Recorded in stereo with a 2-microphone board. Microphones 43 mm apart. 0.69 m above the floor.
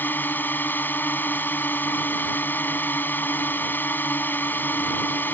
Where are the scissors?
No scissors in this recording.